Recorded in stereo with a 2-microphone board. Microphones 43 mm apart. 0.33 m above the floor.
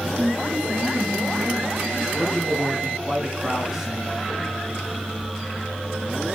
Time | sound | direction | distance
0.2 | a woman speaking | 35° right (ahead or behind) | 3 m
2.1 | a man speaking | 5° right (ahead or behind) | 3 m